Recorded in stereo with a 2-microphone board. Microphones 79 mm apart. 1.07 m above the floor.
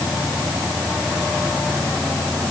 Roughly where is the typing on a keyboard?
No typing on a keyboard in this recording.